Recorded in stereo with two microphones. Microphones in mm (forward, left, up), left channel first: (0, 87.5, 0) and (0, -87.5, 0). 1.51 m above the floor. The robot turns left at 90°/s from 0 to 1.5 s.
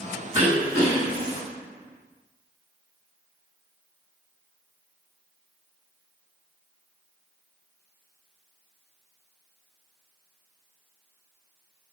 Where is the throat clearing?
145° right, 1.3 m; by 1.4 s 120° left, 1.3 m.